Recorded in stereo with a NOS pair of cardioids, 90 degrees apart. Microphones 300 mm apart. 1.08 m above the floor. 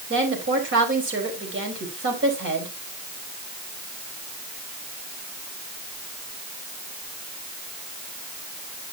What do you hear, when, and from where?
0.1 s a woman speaking: 40° right, 4.5 m